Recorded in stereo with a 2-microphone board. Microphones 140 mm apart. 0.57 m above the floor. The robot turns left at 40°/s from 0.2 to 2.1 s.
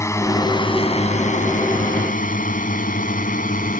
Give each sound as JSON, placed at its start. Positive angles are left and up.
{"t": 0.0, "sound": "a drone", "side_deg": 20}